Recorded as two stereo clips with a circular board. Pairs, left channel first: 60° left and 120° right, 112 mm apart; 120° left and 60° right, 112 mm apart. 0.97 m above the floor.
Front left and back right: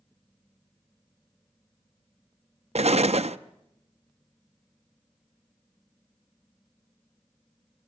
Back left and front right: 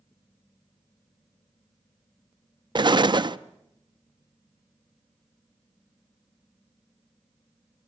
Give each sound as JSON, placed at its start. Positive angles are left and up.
{"t": 2.8, "sound": "an explosion", "azimuth_deg": -105, "distance_m": 0.5}